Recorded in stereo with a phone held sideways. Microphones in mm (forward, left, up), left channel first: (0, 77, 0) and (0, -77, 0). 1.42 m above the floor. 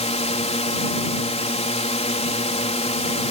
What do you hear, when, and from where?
0.0 s a drone: 45° left (ahead or behind)